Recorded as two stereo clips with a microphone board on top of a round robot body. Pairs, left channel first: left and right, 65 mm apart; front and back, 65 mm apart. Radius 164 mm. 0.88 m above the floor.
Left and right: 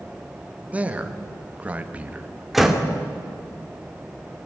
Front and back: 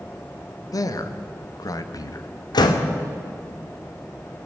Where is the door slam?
Straight ahead, 1.8 m.